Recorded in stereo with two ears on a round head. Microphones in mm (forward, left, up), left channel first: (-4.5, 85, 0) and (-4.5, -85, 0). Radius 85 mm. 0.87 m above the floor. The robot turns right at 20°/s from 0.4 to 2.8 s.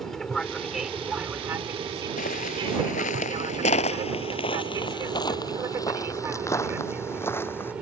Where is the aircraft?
Centre (ahead or behind); by 7.8 s 5° right (ahead or behind).